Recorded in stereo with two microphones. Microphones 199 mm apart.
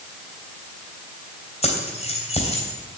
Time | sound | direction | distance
1.6 | keys jangling | 30° left (ahead or behind) | 3 m